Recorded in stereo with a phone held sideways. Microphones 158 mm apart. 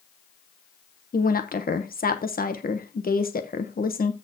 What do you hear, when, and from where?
1.1 s a woman speaking: 65° left (ahead or behind), 1.0 m